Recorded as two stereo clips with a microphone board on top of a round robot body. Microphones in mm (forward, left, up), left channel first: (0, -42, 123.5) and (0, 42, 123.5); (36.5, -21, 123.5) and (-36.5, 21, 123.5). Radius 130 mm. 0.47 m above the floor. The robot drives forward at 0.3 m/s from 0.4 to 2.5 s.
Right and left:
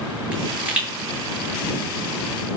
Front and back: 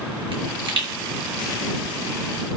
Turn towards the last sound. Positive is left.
turn(degrees=165)